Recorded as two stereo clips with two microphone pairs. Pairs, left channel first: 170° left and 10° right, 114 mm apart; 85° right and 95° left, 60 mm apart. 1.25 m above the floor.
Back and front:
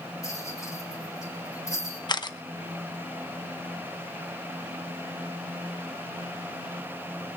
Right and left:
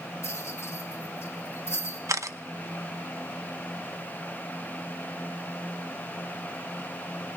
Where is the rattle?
130° right, 3 m.